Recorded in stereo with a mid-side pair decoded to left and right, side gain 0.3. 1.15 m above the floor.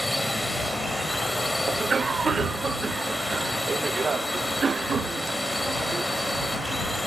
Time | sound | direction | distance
0.0 | a drone | 10° left | ?
1.7 | a cough | 55° right | ?